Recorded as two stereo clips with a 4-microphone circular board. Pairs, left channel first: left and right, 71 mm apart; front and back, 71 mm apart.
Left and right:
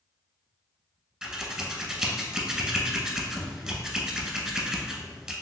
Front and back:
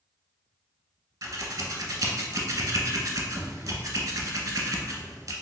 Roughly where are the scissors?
Behind.